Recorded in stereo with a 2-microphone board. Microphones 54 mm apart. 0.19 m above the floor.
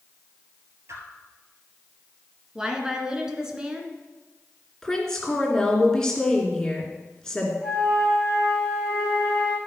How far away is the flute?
About 4.5 m.